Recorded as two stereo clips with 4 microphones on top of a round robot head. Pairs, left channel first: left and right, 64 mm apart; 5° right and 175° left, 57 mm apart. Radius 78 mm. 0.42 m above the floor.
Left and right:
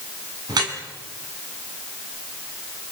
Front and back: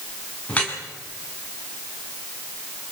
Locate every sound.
0.5 s dripping: 75° right, 4.5 m